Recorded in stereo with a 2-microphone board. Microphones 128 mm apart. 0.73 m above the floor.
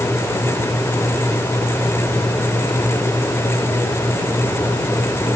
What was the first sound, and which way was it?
Only background noise.